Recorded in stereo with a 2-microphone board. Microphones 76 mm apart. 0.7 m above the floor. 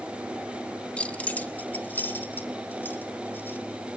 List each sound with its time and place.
1.0 s keys jangling: 15° left (ahead or behind), 0.7 m; by 3.6 s 30° left (ahead or behind), 3 m